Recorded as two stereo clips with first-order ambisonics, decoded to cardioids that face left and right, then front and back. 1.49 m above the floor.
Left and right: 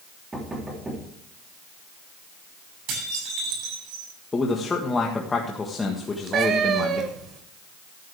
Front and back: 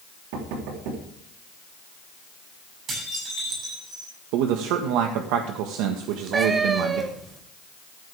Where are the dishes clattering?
120° right, 9 m.